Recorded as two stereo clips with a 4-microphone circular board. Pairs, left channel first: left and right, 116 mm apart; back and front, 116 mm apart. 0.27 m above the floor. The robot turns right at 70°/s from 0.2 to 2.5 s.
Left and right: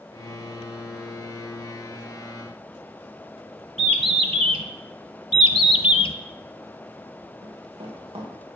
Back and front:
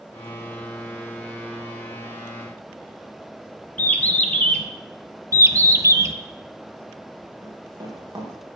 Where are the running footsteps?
55° right, 5.5 m.